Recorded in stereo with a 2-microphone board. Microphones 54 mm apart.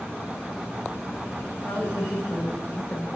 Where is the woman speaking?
30° left (ahead or behind), 3.5 m.